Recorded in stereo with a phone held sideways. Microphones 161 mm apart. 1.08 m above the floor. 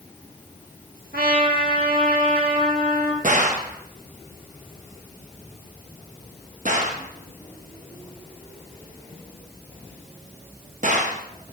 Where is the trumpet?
70° right (ahead or behind), 1.6 m.